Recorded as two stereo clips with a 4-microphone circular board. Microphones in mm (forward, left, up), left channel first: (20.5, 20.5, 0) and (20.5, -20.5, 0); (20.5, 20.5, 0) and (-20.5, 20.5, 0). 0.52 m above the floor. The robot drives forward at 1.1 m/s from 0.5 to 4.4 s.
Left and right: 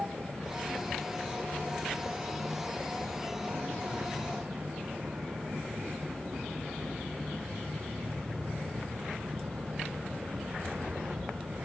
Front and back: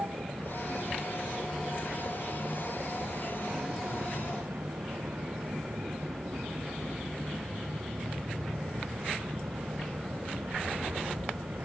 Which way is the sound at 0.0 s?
150° right.